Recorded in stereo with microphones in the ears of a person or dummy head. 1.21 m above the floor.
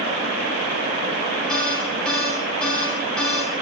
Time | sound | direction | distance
1.5 | an alarm | 5° left (ahead or behind) | 7 m